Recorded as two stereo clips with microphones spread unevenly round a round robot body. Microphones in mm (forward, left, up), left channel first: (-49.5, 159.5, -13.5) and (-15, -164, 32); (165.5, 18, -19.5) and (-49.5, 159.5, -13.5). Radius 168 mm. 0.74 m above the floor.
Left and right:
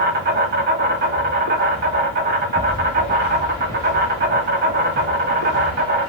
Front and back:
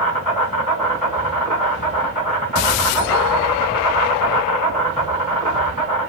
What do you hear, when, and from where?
0.0 s an insect: 145° right, 2 m